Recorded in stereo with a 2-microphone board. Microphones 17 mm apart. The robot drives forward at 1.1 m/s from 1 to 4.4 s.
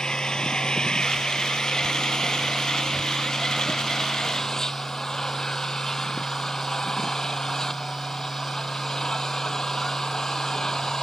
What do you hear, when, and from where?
0.0 s an engine running: 55° left (ahead or behind); by 11.0 s 40° left (ahead or behind)